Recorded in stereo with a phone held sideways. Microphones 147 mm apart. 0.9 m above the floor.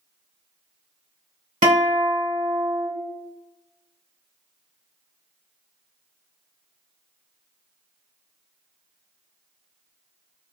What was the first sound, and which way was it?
A guitar, 60° right (ahead or behind).